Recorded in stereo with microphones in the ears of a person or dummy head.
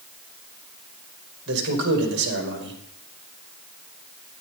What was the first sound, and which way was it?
A man speaking, 65° right (ahead or behind).